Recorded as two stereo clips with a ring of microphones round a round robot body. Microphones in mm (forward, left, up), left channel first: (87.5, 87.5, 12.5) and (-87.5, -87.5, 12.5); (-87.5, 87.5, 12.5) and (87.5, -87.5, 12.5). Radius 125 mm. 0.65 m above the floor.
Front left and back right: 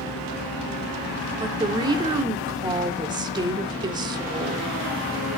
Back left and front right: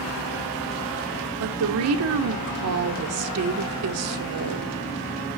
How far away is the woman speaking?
About 1.6 m.